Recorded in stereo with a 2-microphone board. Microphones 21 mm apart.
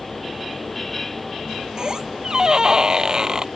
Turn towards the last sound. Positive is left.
turn(degrees=-35)  # may be behind; listen again after turning